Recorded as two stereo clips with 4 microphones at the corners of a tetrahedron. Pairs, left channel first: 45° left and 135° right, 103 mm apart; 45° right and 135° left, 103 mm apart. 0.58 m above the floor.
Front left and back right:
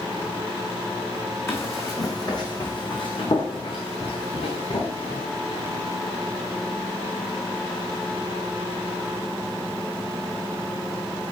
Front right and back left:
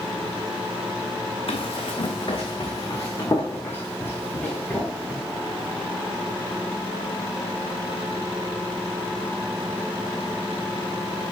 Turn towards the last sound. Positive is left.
turn(degrees=35)